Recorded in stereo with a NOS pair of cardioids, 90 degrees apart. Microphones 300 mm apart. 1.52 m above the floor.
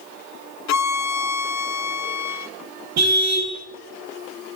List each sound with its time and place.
0.7 s a violin: 65° left, 0.7 m
3.0 s a car horn: 60° right, 4.5 m